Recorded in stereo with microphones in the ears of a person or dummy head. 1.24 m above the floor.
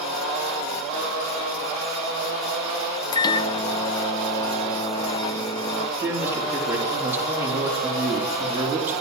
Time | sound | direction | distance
3.1 | a microwave | 15° left (ahead or behind) | 0.6 m
6.0 | a man speaking | 5° right (ahead or behind) | 3.5 m